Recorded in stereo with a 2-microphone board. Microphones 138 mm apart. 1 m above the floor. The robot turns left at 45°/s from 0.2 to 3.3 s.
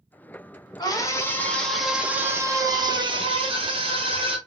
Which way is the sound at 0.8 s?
45° left.